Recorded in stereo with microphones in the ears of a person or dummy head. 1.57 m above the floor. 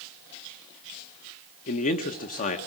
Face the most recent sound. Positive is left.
turn(degrees=50)  # may be behind; listen again after turning